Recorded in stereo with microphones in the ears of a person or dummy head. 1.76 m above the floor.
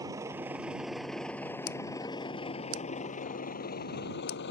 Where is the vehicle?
15° right (ahead or behind); by 4.5 s 55° left (ahead or behind).